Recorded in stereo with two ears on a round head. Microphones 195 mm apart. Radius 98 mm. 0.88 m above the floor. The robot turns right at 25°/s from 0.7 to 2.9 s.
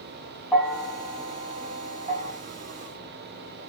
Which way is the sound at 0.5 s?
5° right (ahead or behind).